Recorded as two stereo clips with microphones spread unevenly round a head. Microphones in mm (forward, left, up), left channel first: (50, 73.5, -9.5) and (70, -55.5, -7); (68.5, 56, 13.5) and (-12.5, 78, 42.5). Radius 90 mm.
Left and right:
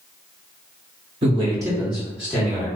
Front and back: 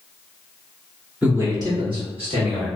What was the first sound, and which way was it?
A man speaking, 100° right.